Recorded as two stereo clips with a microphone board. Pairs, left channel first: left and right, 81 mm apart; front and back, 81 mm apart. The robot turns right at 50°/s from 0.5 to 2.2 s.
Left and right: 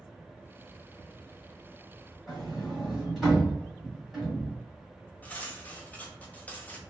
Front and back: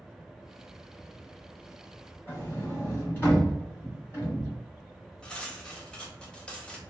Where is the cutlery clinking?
60° left, 0.6 m.